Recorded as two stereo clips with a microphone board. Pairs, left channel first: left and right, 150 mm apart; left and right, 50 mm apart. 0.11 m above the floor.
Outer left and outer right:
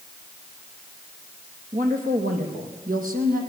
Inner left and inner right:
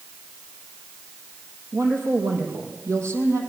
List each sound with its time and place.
1.7 s a woman speaking: 65° right (ahead or behind), 4.5 m; by 3.4 s 70° right (ahead or behind), 5 m